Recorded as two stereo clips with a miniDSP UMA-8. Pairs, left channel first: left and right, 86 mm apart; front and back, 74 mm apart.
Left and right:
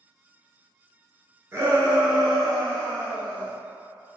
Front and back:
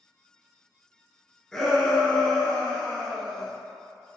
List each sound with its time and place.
1.5 s a shout: 75° right, 1.2 m; by 3.5 s 55° left, 1.3 m